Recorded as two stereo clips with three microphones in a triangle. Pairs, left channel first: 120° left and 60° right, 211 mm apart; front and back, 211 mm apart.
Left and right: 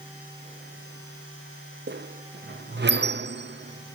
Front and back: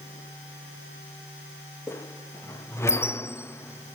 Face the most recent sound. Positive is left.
turn(degrees=-75)